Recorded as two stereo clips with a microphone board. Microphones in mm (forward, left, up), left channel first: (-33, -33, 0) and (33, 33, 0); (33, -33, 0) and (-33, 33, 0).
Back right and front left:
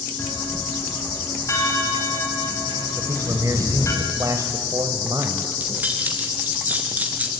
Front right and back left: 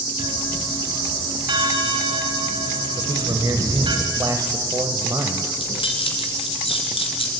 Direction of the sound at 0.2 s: 170° left.